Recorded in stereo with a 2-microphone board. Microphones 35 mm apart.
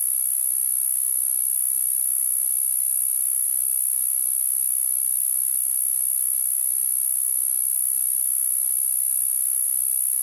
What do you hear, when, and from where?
0.0 s an insect: 5° left (ahead or behind)